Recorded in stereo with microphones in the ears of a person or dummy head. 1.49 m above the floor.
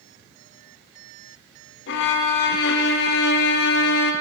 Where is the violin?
60° left (ahead or behind), 0.7 m.